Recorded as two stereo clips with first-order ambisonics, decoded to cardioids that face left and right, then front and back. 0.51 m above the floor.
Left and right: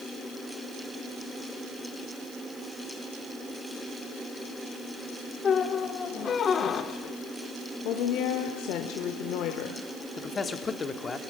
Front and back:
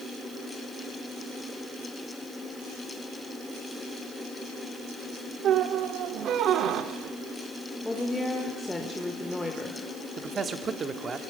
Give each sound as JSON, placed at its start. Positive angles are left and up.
{"t": 5.4, "sound": "a squeak", "azimuth_deg": 145, "distance_m": 0.9}
{"t": 7.8, "sound": "a woman speaking", "azimuth_deg": 80, "distance_m": 1.2}
{"t": 10.2, "sound": "a man speaking", "azimuth_deg": 135, "distance_m": 0.9}